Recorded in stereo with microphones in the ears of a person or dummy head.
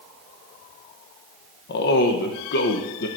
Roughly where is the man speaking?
Left.